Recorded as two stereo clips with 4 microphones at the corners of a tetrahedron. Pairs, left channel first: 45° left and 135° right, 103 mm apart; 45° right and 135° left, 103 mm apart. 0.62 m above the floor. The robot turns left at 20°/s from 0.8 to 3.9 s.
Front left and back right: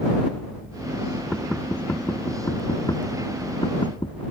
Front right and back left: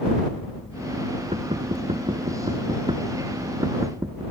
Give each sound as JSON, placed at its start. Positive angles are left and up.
{"t": 1.3, "sound": "knocking", "azimuth_deg": 130}